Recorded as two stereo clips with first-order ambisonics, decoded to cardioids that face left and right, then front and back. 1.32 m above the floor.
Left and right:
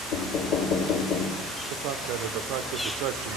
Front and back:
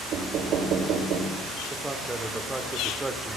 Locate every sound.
0.1 s knocking: 130° left, 1.6 m
1.7 s a man speaking: 100° right, 0.8 m